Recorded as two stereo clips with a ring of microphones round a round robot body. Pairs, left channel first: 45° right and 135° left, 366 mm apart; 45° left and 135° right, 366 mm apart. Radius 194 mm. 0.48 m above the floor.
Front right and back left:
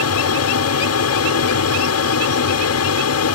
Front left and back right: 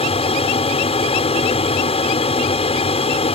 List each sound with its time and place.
0.0 s an aircraft: 20° right